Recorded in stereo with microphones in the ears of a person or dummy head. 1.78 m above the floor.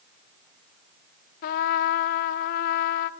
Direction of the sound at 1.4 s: 50° left (ahead or behind).